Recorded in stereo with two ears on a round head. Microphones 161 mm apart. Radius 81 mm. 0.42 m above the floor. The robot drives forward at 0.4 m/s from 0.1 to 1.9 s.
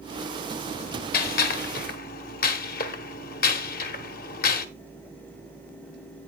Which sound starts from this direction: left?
A gunshot, at 1.1 s.